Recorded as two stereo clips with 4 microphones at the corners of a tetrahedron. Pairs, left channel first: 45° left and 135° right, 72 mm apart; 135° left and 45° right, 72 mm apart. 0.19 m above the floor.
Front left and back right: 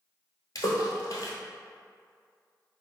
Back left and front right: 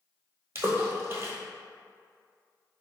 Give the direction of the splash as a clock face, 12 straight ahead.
12 o'clock.